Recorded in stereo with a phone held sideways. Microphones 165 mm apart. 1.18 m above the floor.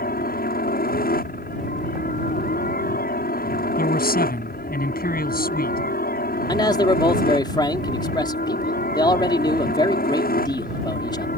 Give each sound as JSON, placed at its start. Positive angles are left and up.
{"t": 0.0, "sound": "a helicopter", "side_deg": 65}
{"t": 3.8, "sound": "a man speaking", "side_deg": 65}
{"t": 6.5, "sound": "a man speaking", "side_deg": 25}